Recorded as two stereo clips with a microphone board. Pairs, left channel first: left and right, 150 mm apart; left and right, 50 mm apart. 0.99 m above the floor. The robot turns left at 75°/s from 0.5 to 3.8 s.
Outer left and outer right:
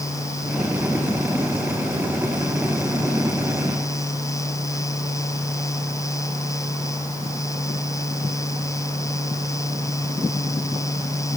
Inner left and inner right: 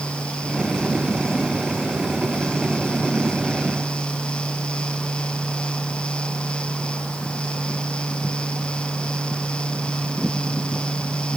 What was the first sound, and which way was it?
Only background noise.